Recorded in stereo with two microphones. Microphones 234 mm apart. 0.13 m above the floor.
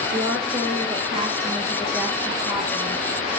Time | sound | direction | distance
0.1 | a woman speaking | 40° right (ahead or behind) | 3 m